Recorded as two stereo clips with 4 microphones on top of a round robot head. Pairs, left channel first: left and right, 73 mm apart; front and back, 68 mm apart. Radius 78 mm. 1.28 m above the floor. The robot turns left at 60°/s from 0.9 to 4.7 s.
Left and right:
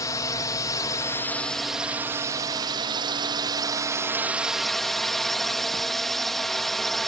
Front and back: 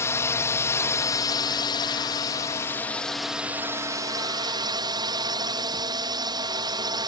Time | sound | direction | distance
0.0 | a drone | 45° left | ?